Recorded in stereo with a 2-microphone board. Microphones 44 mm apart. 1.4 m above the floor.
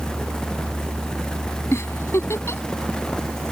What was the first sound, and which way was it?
A giggle, 85° left.